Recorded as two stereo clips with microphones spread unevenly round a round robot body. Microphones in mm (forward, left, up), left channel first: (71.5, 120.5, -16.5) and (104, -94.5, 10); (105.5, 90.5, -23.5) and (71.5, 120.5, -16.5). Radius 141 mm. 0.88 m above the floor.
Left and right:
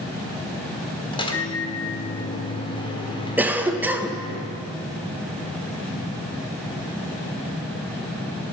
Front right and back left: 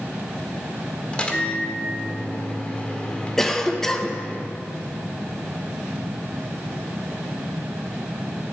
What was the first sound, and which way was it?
A microwave, 30° left.